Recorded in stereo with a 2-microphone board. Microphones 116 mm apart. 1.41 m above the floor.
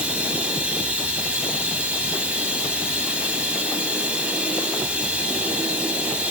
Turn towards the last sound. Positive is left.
turn(degrees=-10)  # may be behind; listen again after turning